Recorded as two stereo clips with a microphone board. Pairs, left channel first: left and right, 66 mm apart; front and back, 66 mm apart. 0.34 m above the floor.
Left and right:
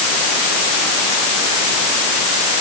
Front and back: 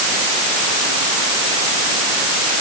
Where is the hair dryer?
No hair dryer in this recording.